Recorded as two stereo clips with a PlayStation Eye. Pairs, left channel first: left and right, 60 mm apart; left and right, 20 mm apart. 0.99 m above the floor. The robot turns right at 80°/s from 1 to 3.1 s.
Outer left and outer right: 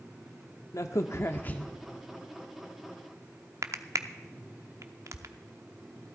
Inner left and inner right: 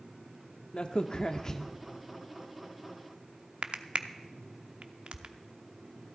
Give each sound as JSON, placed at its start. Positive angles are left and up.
{"t": 0.7, "sound": "a crack", "side_deg": 55, "distance_m": 0.7}